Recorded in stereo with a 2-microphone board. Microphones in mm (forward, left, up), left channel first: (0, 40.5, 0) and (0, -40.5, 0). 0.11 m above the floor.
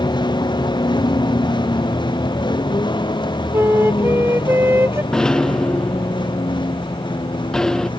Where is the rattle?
5° left (ahead or behind).